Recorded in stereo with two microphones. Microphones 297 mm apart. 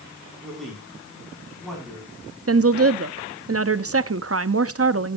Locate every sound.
0.4 s a man speaking: centre (ahead or behind), 6 m
2.5 s a woman speaking: 45° right (ahead or behind), 0.7 m